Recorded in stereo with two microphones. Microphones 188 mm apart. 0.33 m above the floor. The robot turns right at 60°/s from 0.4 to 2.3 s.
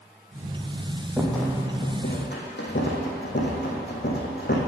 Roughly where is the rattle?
Centre.